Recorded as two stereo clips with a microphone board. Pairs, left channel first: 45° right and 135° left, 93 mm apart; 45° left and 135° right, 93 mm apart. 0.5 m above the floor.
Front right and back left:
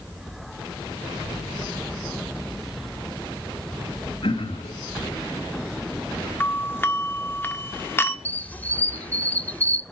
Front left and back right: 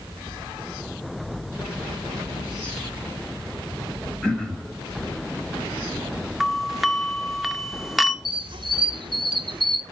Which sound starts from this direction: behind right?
A squeak, at 8.2 s.